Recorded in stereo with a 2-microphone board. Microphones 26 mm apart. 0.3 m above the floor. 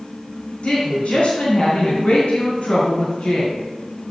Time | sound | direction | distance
0.6 | a woman speaking | 60° left (ahead or behind) | 3.5 m